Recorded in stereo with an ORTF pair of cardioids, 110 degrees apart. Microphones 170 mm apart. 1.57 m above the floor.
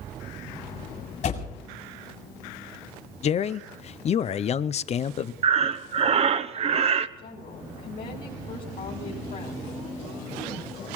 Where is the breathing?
40° right, 0.8 m.